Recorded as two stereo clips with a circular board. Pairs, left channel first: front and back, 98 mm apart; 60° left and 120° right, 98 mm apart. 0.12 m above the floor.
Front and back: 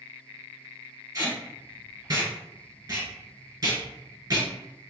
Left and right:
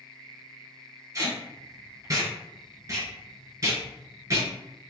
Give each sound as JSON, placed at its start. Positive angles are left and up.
{"t": 1.1, "sound": "tape being pulled", "azimuth_deg": -150, "distance_m": 1.6}